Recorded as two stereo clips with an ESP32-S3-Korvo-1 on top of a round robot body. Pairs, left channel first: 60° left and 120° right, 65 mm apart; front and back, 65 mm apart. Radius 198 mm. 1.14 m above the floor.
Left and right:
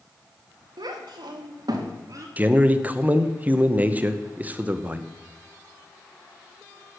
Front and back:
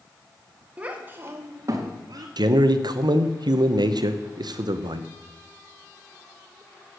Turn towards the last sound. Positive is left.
turn(degrees=175)